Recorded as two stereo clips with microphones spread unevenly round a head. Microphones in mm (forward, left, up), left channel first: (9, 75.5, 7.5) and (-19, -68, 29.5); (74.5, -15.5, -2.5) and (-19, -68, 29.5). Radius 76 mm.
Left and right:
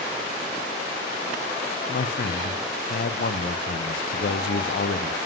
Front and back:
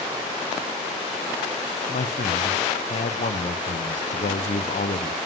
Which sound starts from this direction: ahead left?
A man speaking, at 1.9 s.